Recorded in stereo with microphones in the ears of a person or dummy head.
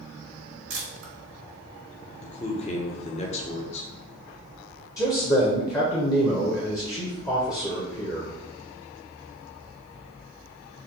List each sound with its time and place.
0.7 s a camera shutter: 80° right, 1.9 m
2.2 s a man speaking: 35° left (ahead or behind), 0.9 m
5.0 s a man speaking: 15° left (ahead or behind), 0.8 m